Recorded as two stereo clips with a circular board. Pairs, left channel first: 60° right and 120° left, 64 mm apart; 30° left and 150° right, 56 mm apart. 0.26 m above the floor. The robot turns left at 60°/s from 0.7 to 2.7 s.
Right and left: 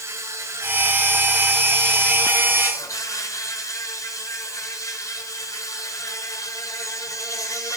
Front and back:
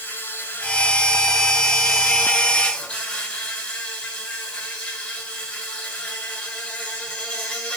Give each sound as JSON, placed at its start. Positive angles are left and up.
{"t": 0.0, "sound": "an insect", "azimuth_deg": 90, "distance_m": 5.0}